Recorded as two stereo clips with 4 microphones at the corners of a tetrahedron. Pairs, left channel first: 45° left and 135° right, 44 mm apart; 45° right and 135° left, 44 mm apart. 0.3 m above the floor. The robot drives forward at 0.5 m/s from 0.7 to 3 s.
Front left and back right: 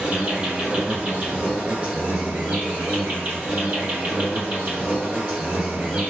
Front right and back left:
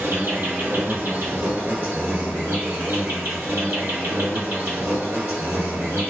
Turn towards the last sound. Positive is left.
turn(degrees=165)